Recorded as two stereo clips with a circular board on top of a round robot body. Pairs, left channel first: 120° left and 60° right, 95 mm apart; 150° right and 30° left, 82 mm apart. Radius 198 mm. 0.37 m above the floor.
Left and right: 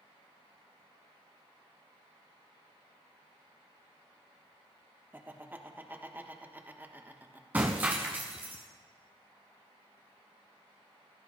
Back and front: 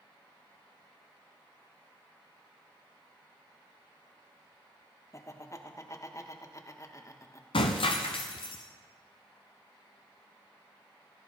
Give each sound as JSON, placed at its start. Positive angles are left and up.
{"t": 5.1, "sound": "laughter", "azimuth_deg": -120, "distance_m": 1.5}
{"t": 7.5, "sound": "breaking glass", "azimuth_deg": -135, "distance_m": 0.5}